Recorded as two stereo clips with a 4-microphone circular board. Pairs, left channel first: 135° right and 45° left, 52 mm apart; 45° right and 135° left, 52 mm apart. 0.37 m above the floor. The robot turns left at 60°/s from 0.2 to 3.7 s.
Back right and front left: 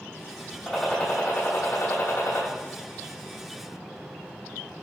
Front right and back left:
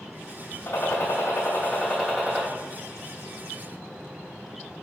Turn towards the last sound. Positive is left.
turn(degrees=135)